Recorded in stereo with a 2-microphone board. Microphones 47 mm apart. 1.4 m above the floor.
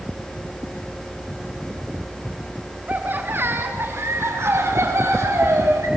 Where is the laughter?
35° right (ahead or behind), 1.7 m; by 5.9 s 70° right (ahead or behind), 4.5 m.